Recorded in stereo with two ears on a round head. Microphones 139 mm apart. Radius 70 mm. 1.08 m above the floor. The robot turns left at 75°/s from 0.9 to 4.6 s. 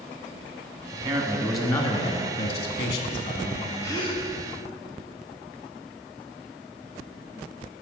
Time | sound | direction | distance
0.9 | a man speaking | 135° right | 1.6 m
3.8 | a gasp | 160° left | 1.2 m